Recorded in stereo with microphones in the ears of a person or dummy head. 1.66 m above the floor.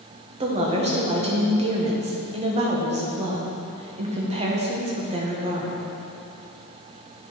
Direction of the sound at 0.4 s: 40° right (ahead or behind).